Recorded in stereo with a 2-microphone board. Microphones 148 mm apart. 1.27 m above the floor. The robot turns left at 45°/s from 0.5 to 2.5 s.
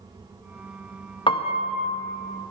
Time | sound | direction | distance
1.3 | a piano | 35° left (ahead or behind) | 0.6 m